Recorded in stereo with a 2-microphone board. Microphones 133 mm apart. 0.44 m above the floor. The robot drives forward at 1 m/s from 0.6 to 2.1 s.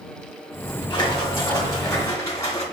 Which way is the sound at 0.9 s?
35° left (ahead or behind).